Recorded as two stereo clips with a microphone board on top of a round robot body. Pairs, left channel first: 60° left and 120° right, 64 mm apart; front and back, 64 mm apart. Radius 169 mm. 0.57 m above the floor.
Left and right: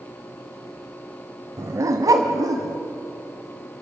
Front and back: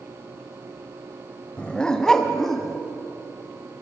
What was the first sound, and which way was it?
A dog barking, 75° right.